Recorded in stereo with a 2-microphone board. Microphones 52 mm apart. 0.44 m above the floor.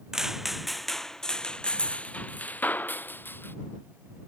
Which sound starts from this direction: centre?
Footsteps, at 0.1 s.